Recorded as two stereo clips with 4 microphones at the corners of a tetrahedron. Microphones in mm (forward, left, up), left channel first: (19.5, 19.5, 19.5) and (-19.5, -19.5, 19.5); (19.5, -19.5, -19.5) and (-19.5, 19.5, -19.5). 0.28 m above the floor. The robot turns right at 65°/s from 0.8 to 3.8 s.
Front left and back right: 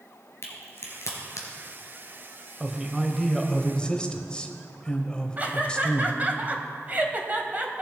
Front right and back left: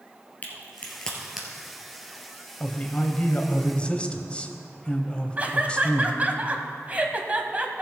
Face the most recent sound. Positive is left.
turn(degrees=-175)